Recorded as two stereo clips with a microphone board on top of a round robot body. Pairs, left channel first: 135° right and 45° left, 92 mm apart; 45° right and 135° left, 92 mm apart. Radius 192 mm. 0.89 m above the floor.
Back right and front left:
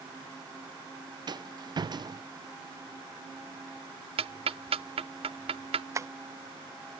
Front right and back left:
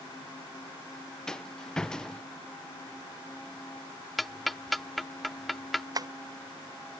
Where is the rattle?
35° left.